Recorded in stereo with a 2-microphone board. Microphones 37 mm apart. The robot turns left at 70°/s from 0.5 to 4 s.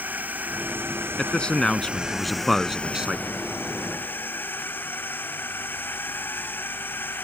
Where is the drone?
50° right (ahead or behind); by 7.2 s 65° left (ahead or behind).